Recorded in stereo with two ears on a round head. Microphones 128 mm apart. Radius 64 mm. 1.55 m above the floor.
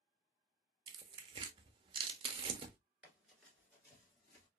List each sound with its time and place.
0.9 s tearing paper: 35° right (ahead or behind), 0.5 m
3.0 s running footsteps: 5° right (ahead or behind), 1.5 m; by 4.5 s 25° left (ahead or behind), 1.8 m